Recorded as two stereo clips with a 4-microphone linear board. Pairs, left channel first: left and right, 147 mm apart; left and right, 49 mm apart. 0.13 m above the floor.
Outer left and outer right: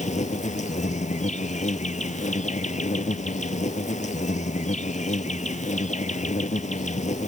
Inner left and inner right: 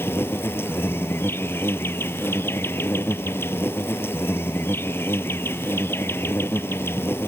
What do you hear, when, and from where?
0.0 s an insect: 55° left (ahead or behind)